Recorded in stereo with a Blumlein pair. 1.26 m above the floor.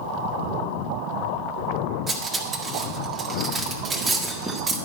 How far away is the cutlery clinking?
About 1.5 m.